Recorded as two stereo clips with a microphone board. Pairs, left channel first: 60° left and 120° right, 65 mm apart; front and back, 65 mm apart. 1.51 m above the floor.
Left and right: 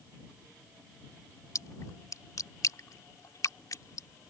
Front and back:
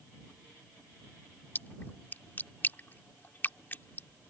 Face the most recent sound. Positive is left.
turn(degrees=50)